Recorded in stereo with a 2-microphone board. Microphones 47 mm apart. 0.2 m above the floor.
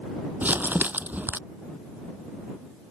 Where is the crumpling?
40° right (ahead or behind).